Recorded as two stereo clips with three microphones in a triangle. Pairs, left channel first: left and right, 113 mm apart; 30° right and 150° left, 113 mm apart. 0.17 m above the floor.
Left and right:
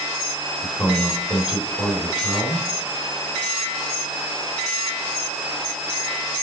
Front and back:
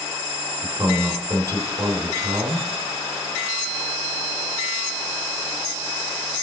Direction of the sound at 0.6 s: 175° right.